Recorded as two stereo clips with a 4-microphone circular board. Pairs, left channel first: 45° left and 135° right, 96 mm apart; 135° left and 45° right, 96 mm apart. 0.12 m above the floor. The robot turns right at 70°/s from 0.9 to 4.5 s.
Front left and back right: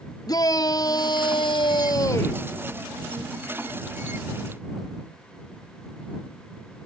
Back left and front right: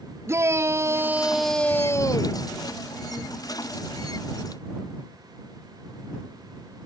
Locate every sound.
0.3 s a shout: 10° left; by 2.4 s 115° left